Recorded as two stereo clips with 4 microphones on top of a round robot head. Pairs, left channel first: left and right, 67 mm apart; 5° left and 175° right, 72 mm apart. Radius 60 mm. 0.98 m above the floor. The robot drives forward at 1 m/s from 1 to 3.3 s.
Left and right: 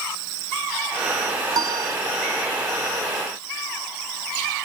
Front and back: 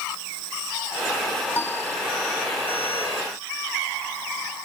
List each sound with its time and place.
1.5 s a piano: 60° right; by 2.0 s 65° right